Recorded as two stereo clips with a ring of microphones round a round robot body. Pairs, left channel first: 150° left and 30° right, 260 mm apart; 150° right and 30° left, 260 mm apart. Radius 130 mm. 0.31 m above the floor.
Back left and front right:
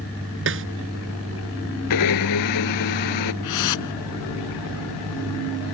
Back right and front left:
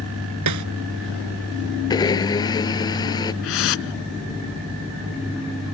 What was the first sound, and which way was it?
A snare drum, 15° left.